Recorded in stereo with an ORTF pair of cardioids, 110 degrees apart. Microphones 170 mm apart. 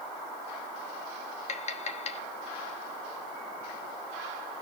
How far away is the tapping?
About 1.1 m.